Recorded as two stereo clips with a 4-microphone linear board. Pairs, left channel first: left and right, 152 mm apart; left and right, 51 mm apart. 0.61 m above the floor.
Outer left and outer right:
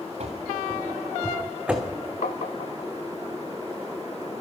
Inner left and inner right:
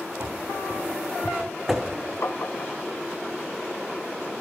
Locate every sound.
0.2 s running footsteps: 45° right (ahead or behind), 2.5 m; by 2.0 s centre (ahead or behind), 2 m
2.2 s tapping: 60° left (ahead or behind), 0.7 m